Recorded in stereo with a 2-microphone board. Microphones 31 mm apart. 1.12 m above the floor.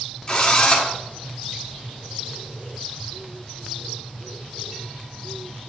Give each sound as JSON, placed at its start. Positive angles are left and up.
{"t": 0.3, "sound": "a drill", "side_deg": 25, "distance_m": 1.6}